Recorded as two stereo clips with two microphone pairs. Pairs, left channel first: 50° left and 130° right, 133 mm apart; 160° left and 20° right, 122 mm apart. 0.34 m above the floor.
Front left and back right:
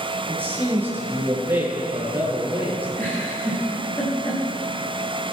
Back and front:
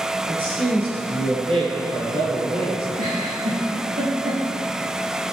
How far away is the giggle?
About 6.5 m.